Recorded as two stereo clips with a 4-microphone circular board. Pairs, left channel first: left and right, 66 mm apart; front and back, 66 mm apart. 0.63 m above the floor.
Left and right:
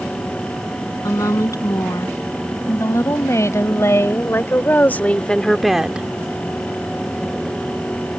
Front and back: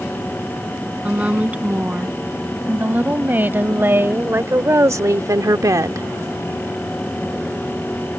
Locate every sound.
1.0 s a woman speaking: 110° left; by 6.1 s 155° right